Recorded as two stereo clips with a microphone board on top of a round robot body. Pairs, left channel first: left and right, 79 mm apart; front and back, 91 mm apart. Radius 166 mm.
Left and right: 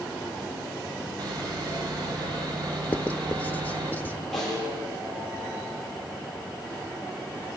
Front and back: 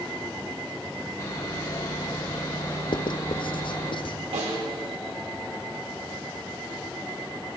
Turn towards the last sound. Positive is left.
turn(degrees=175)